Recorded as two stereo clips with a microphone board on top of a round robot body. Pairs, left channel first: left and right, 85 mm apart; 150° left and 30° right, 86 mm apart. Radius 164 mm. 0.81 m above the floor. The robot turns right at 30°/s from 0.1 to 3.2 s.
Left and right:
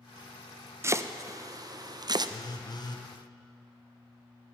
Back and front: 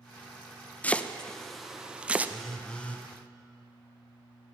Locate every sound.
0.8 s chopping: 140° right, 0.6 m; by 2.3 s 95° right, 0.6 m
2.3 s a phone buzzing: 60° left, 1.0 m; by 3.1 s 85° left, 1.0 m